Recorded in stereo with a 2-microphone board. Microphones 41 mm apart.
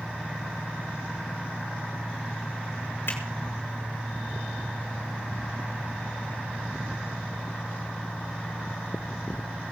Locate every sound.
3.1 s a finger snap: 70° left (ahead or behind), 6 m